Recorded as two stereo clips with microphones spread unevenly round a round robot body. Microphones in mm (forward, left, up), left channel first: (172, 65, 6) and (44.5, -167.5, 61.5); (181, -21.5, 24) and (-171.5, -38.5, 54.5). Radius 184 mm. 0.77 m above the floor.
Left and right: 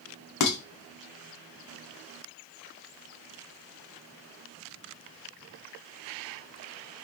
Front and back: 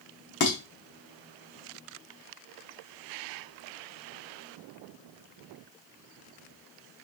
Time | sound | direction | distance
0.4 | dishes clattering | 65° left | 1.0 m